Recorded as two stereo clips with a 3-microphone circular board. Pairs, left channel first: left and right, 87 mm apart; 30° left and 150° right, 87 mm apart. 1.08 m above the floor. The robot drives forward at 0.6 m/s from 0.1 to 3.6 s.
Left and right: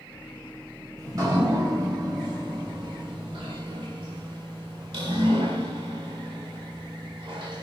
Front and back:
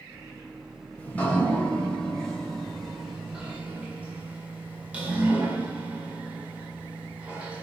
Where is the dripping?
40° right, 3 m; by 7.6 s 75° right, 1.9 m.